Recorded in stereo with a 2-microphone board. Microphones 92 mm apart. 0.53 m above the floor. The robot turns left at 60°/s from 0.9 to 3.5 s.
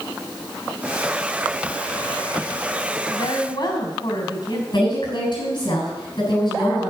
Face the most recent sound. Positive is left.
turn(degrees=55)  # may be behind; listen again after turning